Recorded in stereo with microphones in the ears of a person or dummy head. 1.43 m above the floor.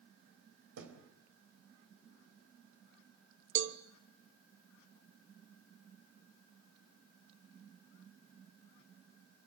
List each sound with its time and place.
0.8 s a thud: 80° right, 3.5 m
3.5 s a cowbell: 55° right (ahead or behind), 1.0 m